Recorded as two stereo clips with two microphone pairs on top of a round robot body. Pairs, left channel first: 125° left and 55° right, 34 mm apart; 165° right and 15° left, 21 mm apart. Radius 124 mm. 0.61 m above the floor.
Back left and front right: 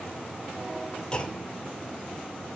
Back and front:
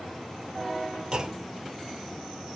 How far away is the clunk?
About 2.5 m.